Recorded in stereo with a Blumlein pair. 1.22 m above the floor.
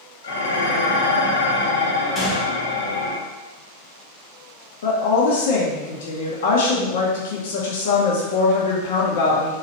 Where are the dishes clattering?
65° left, 1.2 m.